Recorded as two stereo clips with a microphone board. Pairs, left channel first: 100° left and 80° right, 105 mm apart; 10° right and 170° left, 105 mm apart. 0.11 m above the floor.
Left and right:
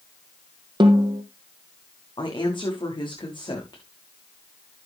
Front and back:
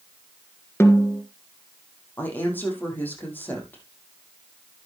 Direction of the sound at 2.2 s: 60° left.